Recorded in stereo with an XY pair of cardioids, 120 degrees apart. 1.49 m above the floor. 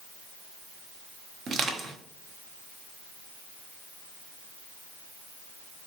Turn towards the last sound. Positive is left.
turn(degrees=-50)